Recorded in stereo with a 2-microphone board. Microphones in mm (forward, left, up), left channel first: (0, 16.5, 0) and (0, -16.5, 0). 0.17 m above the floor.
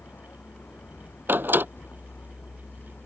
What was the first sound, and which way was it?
A vehicle, 85° left.